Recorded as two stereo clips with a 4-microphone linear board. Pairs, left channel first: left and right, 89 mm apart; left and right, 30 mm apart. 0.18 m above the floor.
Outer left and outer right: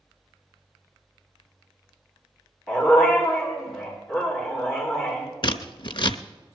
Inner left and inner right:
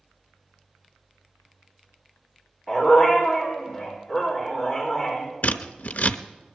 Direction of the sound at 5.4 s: 60° left (ahead or behind).